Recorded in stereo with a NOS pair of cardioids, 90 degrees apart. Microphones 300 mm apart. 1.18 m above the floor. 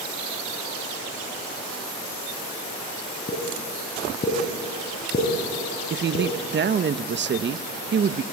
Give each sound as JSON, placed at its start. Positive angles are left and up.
{"t": 3.3, "sound": "a pop", "azimuth_deg": 30, "distance_m": 5.0}
{"t": 5.9, "sound": "a woman speaking", "azimuth_deg": -40, "distance_m": 1.0}